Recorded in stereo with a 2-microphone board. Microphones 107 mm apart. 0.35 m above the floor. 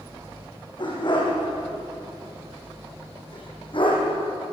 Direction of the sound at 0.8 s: 45° left (ahead or behind).